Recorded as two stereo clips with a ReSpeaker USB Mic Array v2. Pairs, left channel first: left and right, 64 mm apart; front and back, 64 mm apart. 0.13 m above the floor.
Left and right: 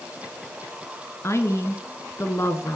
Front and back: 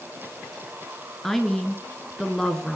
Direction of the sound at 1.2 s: 85° left.